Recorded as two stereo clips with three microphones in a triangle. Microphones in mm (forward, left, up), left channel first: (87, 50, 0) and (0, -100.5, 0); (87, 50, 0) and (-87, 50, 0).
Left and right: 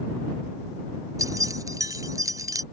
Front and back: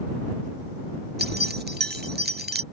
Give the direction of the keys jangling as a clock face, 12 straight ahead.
6 o'clock.